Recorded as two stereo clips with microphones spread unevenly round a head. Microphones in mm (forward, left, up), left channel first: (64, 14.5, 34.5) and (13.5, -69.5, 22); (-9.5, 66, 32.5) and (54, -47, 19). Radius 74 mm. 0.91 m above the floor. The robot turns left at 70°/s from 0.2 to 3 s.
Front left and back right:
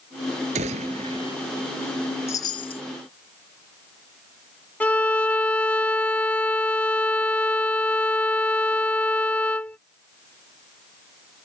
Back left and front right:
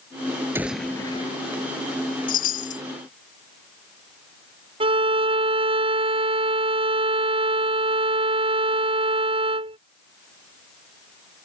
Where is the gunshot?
135° right; by 1.4 s 165° left.